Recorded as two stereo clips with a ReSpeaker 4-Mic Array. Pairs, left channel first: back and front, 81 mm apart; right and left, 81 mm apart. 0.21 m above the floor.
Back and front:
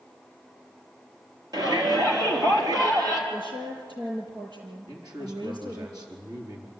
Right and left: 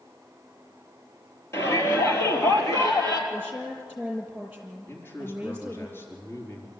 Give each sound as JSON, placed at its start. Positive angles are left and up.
{"t": 1.5, "sound": "a shout", "azimuth_deg": -35, "distance_m": 4.5}
{"t": 3.3, "sound": "a woman speaking", "azimuth_deg": 20, "distance_m": 6.0}
{"t": 4.9, "sound": "a man speaking", "azimuth_deg": -30, "distance_m": 4.0}